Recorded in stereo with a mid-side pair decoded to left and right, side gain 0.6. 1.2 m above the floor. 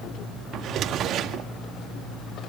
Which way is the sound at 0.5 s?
55° right.